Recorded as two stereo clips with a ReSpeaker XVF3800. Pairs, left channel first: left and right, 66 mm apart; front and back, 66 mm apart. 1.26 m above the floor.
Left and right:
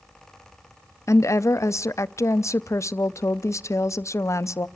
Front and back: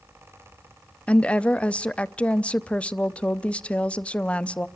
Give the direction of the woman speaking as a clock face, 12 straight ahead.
10 o'clock.